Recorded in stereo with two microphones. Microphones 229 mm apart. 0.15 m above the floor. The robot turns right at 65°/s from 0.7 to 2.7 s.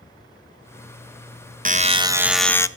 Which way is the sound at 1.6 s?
50° right.